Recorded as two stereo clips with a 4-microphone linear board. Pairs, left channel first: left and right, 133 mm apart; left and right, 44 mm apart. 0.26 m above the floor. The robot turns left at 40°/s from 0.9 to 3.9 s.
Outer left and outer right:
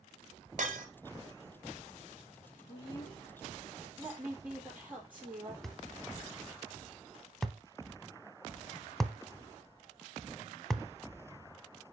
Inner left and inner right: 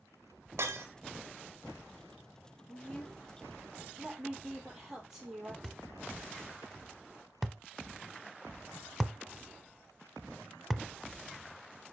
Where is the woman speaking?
40° left, 6.5 m; by 5.5 s 10° right, 6.5 m.